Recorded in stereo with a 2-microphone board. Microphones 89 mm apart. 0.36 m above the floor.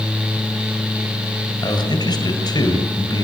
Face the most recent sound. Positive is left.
turn(degrees=50)  # may be behind; listen again after turning